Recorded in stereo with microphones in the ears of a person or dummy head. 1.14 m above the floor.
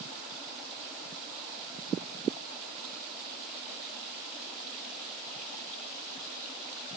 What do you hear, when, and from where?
Only background noise.